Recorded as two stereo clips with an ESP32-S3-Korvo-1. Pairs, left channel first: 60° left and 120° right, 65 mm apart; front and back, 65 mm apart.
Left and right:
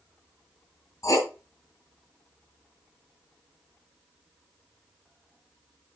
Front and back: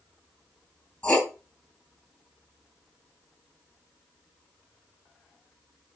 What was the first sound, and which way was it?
Writing, 70° left.